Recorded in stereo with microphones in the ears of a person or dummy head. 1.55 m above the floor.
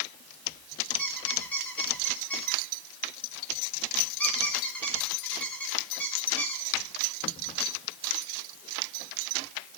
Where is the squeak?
10° left (ahead or behind), 2.5 m.